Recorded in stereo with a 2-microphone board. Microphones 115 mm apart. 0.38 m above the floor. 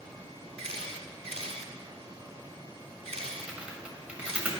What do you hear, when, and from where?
0.6 s a camera shutter: 70° right (ahead or behind), 1.0 m
3.4 s typing on a keyboard: 15° right (ahead or behind), 1.3 m